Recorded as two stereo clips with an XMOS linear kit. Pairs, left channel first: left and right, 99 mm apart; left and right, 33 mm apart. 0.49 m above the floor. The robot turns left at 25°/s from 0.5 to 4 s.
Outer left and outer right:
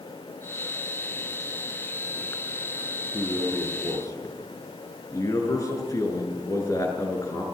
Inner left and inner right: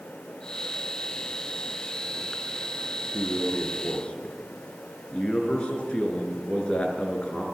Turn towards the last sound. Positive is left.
turn(degrees=35)  # may be behind; listen again after turning